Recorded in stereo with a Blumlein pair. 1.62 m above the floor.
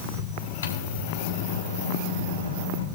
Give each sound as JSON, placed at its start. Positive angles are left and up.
{"t": 0.6, "sound": "a microwave", "azimuth_deg": 65, "distance_m": 1.6}